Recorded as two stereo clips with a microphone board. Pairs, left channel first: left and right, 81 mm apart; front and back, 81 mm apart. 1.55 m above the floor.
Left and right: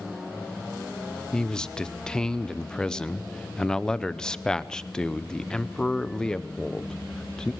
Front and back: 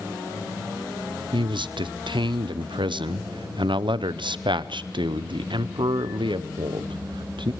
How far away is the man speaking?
About 0.7 m.